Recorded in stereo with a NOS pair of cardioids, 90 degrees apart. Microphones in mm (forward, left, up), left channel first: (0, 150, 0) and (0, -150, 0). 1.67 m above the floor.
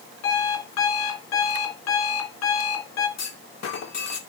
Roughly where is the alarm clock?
Ahead left.